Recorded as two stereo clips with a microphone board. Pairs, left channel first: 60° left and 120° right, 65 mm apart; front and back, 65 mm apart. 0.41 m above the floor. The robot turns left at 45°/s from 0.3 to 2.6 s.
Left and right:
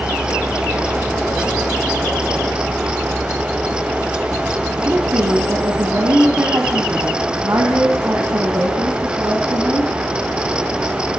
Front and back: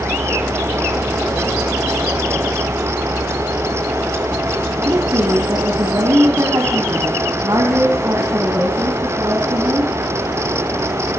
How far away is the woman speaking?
About 3.5 m.